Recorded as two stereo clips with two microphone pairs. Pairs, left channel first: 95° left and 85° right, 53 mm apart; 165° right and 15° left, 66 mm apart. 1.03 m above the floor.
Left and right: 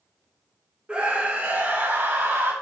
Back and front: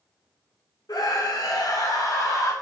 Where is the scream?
155° right, 3 m; by 2.5 s 130° right, 3.5 m.